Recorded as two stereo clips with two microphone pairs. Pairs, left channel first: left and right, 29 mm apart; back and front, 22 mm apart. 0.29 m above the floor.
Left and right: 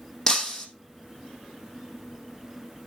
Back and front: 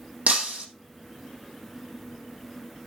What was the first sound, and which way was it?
Breaking glass, 20° left.